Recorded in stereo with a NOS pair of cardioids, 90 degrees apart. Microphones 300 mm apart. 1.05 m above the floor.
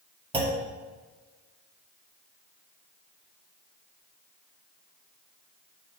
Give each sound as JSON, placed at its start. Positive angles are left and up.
{"t": 0.3, "sound": "a clunk", "azimuth_deg": -15, "distance_m": 2.0}